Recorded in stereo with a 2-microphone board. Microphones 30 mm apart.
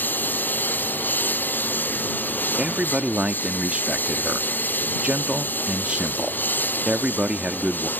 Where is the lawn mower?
85° left.